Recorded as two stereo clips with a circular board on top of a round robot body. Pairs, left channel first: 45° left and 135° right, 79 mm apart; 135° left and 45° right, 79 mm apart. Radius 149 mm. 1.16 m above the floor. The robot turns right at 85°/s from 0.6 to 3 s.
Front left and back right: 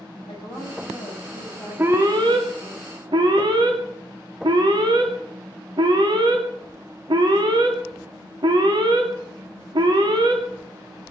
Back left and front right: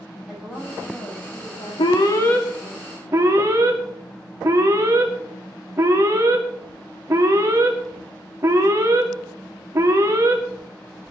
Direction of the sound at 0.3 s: 35° left.